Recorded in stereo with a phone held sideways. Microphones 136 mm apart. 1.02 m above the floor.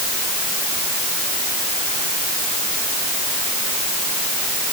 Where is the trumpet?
No trumpet in this recording.